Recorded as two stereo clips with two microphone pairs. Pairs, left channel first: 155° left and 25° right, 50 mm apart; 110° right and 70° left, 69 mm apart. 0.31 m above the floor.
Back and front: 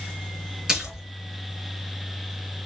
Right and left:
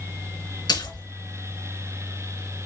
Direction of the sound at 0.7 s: 105° right.